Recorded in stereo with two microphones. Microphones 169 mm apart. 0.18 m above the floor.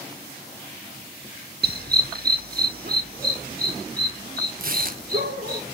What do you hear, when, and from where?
1.6 s a dog barking: 70° right (ahead or behind), 0.8 m; by 5.6 s 60° right (ahead or behind), 6 m
4.6 s tearing paper: 60° right (ahead or behind), 1.0 m